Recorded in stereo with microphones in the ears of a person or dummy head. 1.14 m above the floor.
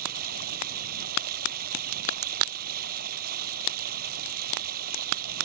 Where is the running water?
50° right (ahead or behind).